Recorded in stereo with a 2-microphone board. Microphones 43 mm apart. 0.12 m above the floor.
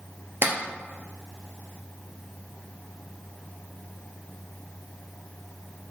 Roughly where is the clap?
Right.